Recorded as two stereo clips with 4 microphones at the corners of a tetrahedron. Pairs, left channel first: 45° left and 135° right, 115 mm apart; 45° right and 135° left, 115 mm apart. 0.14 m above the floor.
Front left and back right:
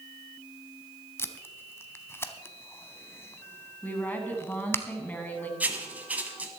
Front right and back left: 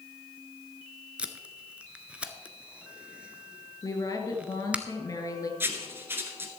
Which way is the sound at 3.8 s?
20° right.